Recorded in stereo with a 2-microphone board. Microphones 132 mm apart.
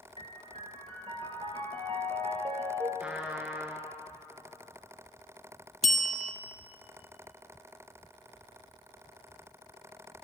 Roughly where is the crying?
I don't hear crying.